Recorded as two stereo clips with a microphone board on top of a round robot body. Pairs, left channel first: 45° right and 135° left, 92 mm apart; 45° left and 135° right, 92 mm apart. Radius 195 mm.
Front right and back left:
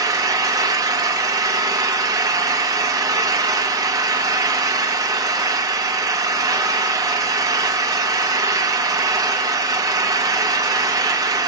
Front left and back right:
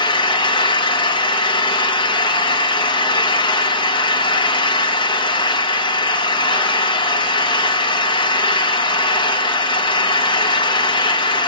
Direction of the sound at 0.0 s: 85° left.